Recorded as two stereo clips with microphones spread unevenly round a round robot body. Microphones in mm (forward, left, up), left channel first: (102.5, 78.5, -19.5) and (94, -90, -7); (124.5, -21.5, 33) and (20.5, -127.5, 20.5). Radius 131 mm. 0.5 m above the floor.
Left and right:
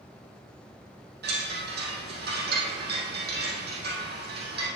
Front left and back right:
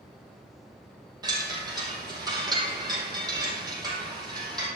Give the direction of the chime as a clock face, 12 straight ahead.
2 o'clock.